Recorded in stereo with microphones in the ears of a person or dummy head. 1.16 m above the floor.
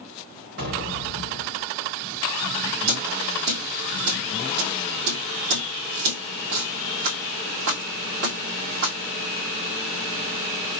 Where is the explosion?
60° right (ahead or behind), 3 m.